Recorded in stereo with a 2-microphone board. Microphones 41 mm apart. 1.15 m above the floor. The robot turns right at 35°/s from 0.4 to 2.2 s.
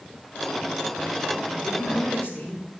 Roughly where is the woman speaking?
Left.